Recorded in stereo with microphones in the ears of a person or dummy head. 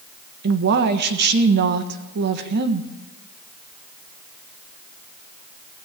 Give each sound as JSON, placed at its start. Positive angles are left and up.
{"t": 0.4, "sound": "a woman speaking", "side_deg": -60, "distance_m": 1.3}